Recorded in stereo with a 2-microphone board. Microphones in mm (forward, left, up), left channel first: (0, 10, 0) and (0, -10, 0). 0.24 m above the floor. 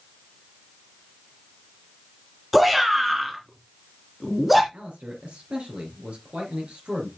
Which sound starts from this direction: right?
A man speaking, at 4.7 s.